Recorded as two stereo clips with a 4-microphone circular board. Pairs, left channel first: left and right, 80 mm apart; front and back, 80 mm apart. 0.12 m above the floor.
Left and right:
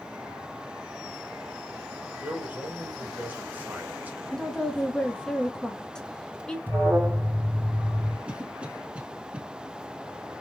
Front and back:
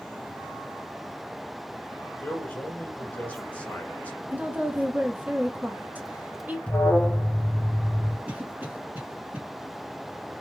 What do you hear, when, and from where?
2.2 s a man speaking: 50° right, 1.3 m
4.3 s a woman speaking: 155° left, 1.2 m
6.7 s an alarm: 60° right, 0.8 m
8.3 s a cough: 140° right, 1.3 m